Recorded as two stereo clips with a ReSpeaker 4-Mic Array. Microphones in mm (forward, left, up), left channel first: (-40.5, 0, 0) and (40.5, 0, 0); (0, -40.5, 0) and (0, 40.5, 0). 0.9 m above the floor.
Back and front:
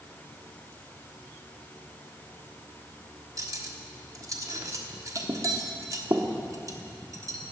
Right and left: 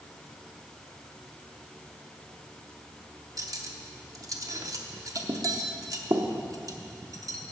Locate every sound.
3.4 s cutlery clinking: 45° left, 0.9 m